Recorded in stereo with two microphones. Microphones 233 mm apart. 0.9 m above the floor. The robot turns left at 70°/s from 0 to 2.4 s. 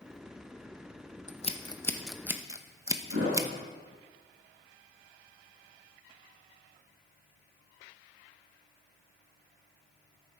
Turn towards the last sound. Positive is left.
turn(degrees=-85)